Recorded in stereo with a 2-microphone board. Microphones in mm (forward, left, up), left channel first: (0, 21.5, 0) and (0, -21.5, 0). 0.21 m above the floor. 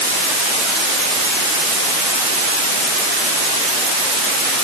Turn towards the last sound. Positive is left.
No sound to turn to.